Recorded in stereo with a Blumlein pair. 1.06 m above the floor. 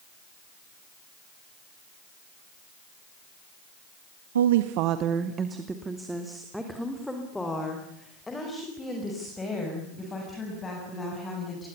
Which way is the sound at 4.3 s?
65° right.